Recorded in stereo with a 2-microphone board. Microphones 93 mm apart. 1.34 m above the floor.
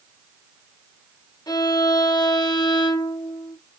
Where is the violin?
50° left (ahead or behind), 1.0 m.